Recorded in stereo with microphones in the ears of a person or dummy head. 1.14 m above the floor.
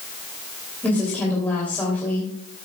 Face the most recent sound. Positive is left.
turn(degrees=10)  # may be behind; listen again after turning